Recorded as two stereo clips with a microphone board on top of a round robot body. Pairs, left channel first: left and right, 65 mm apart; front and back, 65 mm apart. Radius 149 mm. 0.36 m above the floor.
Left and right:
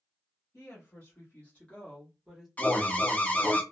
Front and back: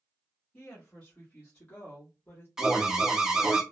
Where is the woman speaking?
60° left, 1.6 m; by 2.5 s 10° right, 1.2 m.